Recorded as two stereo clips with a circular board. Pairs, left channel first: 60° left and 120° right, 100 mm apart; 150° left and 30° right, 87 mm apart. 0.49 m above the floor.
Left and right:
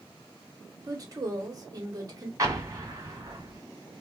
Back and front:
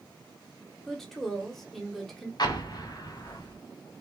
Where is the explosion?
175° right, 0.8 m.